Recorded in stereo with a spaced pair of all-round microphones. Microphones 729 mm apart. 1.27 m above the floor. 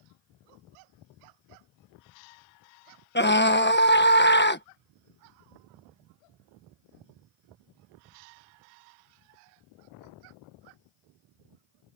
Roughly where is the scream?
Centre.